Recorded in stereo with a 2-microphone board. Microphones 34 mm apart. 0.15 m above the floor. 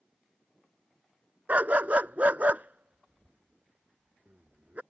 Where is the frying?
No frying in this recording.